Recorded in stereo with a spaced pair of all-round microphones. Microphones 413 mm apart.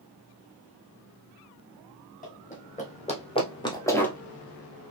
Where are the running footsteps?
20° left (ahead or behind), 3 m; by 4.2 s 5° left (ahead or behind), 1.4 m.